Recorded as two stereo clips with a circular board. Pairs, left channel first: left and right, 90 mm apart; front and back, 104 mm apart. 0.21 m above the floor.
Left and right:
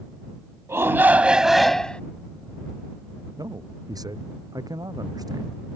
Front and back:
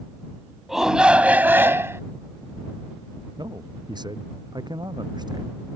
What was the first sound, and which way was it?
A shout, 95° right.